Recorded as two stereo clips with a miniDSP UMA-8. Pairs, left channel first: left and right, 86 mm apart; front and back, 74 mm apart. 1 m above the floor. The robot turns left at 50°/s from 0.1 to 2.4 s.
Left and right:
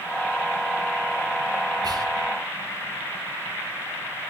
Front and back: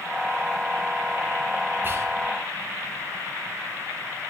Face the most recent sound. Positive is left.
turn(degrees=-150)